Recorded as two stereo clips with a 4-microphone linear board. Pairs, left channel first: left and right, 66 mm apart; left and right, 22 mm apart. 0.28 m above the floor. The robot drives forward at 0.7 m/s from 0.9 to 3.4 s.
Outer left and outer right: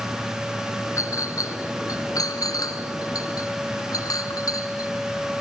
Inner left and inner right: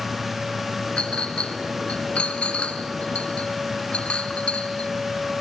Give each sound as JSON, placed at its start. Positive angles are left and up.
{"t": 1.0, "sound": "a clink", "side_deg": 55, "distance_m": 2.5}